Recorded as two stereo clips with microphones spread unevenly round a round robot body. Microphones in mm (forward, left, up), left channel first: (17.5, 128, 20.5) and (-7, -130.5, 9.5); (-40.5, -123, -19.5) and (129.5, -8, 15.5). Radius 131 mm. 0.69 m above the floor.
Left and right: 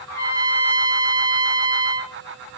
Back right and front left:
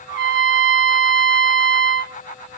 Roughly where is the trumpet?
Ahead.